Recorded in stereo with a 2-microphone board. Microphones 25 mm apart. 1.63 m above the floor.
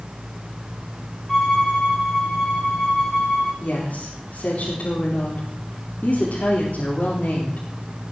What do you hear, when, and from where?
1.3 s a violin: 20° left (ahead or behind), 9.5 m
3.6 s a woman speaking: 60° left (ahead or behind), 4 m